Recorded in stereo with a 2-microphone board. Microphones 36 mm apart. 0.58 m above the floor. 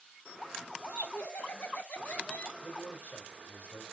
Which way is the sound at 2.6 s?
45° left (ahead or behind).